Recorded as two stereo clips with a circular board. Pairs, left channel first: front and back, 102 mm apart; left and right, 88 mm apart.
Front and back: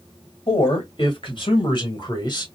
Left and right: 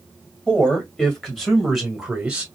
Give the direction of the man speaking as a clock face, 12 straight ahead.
12 o'clock.